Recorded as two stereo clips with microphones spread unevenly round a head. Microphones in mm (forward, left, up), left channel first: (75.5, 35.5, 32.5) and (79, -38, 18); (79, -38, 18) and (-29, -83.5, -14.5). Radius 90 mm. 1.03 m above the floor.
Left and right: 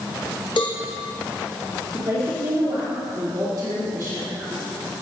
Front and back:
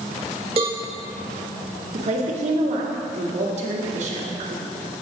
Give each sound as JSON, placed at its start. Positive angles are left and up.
{"t": 0.6, "sound": "a cowbell", "azimuth_deg": 145, "distance_m": 0.6}
{"t": 1.9, "sound": "a woman speaking", "azimuth_deg": -145, "distance_m": 2.5}